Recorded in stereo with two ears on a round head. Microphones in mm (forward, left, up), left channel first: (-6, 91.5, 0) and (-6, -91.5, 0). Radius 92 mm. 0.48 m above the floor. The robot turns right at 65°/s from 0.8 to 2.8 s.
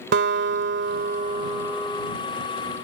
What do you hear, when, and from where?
0.1 s a guitar: 70° right; by 2.1 s 20° left